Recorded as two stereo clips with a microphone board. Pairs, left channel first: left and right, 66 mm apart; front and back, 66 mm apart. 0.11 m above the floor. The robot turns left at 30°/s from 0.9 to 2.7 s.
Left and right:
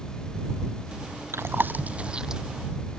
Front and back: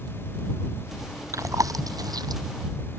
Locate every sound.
1.3 s chewing: 140° right; by 2.4 s 175° right